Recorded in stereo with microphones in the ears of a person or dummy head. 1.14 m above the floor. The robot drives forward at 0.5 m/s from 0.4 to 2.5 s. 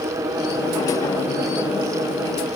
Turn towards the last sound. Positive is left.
No sound to turn to.